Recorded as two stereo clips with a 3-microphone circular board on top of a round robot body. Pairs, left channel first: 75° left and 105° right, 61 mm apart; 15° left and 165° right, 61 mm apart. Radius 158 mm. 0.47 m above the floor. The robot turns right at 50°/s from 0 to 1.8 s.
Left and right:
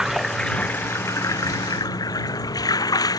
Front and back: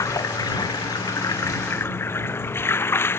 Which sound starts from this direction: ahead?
Running water, at 0.0 s.